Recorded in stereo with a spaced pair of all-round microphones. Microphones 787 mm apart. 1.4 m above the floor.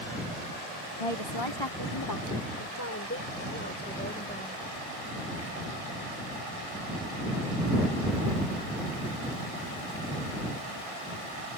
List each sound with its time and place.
1.0 s a woman speaking: 45° left (ahead or behind); by 4.6 s 10° left (ahead or behind)